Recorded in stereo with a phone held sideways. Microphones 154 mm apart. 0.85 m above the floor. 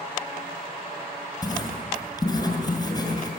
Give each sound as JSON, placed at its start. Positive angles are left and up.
{"t": 1.4, "sound": "writing", "side_deg": 25, "distance_m": 7.0}